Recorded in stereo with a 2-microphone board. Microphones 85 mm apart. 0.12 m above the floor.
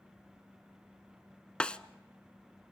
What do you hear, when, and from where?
1.6 s a snare drum: 10° left (ahead or behind), 0.6 m